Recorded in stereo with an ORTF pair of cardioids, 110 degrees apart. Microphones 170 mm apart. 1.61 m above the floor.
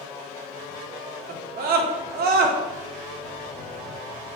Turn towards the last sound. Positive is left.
turn(degrees=-70)